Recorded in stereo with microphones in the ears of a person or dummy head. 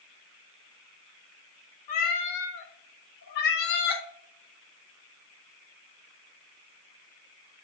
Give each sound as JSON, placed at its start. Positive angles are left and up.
{"t": 1.9, "sound": "a cat meowing", "side_deg": 45, "distance_m": 1.1}